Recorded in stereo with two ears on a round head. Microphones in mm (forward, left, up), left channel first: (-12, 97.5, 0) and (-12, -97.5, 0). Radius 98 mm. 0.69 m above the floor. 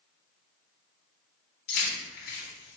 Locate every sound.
1.7 s keys jangling: 50° left (ahead or behind), 1.3 m